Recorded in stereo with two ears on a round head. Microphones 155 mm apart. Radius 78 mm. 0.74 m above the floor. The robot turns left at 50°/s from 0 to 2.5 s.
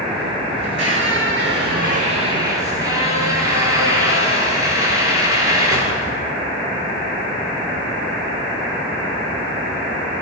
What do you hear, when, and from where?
0.6 s a squeak: 60° right, 8 m; by 6.3 s 160° right, 8 m